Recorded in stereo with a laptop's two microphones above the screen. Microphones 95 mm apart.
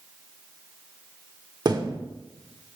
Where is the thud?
45° right (ahead or behind), 1.0 m.